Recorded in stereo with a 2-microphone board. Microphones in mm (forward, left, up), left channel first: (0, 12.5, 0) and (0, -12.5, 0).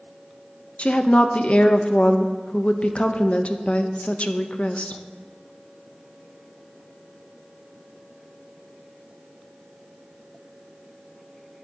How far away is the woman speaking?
About 0.8 m.